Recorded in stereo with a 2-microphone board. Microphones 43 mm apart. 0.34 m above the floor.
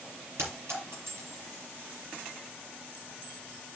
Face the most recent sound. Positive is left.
turn(degrees=-80)